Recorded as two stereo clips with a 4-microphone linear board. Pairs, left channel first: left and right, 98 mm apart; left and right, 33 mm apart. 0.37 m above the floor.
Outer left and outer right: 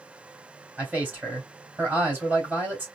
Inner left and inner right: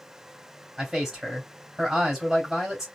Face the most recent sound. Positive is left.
turn(degrees=-15)  # may be behind; listen again after turning